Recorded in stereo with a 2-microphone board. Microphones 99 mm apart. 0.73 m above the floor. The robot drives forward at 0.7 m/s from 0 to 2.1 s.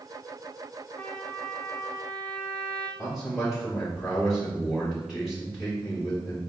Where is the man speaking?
Centre (ahead or behind), 1.8 m.